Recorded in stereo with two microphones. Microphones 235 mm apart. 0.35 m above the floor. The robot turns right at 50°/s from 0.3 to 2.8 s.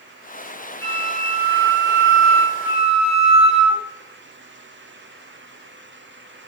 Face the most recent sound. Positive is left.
turn(degrees=0)